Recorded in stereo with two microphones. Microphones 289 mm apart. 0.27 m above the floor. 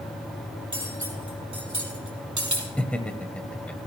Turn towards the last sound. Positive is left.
turn(degrees=5)  # may be behind; listen again after turning